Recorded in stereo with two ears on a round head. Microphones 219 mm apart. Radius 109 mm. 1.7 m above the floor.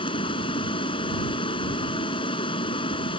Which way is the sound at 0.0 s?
20° left (ahead or behind).